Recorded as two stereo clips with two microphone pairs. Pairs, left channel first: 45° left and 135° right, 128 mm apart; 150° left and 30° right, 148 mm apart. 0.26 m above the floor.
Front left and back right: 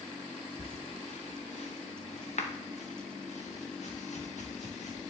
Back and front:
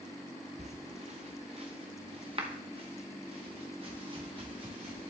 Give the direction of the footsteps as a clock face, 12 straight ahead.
12 o'clock.